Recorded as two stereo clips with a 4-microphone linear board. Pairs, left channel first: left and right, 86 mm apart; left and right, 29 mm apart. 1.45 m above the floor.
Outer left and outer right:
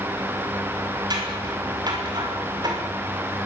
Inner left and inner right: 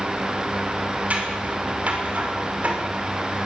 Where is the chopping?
No chopping in this recording.